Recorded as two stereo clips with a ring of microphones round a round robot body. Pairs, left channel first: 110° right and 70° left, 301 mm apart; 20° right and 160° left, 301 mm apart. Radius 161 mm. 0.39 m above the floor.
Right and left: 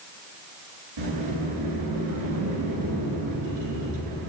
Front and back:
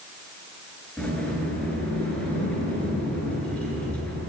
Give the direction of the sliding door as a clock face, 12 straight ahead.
10 o'clock.